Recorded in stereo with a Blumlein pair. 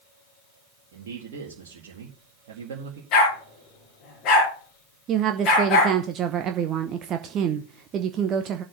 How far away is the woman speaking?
About 0.8 m.